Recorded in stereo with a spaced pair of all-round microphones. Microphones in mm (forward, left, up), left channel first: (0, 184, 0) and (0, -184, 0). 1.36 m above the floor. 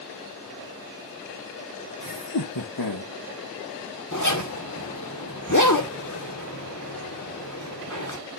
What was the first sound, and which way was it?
Laughter, 60° left (ahead or behind).